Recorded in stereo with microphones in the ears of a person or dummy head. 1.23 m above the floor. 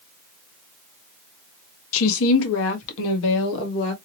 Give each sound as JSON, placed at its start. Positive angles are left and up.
{"t": 1.9, "sound": "a woman speaking", "side_deg": 75, "distance_m": 1.0}